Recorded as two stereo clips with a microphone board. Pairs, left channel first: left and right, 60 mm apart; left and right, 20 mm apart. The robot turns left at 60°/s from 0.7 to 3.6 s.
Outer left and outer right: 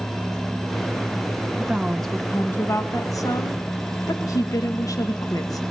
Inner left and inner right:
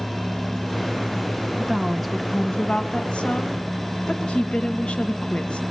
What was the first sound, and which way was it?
A woman speaking, 160° right.